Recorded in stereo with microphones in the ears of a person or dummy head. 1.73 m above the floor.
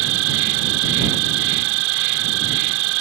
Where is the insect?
75° right (ahead or behind).